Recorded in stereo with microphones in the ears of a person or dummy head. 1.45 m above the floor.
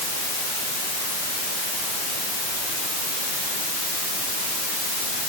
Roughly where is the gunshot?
No gunshot in this recording.